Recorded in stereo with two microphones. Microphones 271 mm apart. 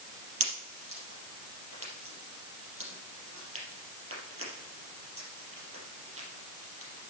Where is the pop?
55° right (ahead or behind), 4 m.